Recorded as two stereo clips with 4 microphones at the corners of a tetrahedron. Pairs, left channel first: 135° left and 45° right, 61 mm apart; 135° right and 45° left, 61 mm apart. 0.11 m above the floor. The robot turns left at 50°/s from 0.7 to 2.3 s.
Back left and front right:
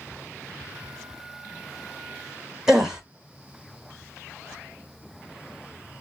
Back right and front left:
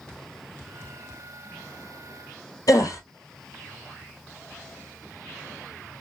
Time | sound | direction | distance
2.7 | a gasp | 125° right | 1.0 m